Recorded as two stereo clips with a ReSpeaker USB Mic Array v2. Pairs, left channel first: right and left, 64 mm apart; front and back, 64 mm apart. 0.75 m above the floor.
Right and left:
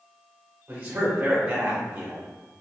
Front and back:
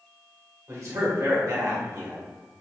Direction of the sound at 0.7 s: 150° left.